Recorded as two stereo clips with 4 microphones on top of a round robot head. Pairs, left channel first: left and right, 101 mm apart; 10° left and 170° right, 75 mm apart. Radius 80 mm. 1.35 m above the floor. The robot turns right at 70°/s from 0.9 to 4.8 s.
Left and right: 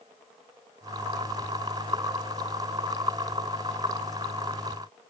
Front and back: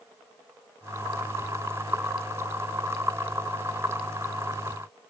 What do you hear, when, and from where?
Only background noise.